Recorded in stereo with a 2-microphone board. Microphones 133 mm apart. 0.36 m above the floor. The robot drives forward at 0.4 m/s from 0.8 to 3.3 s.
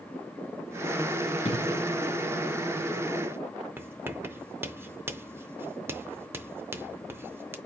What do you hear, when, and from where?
1.4 s an explosion: 55° left (ahead or behind), 1.5 m
3.8 s writing: 15° right (ahead or behind), 0.6 m